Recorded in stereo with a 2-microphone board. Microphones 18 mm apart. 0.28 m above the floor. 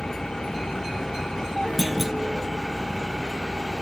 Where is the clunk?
10° right (ahead or behind).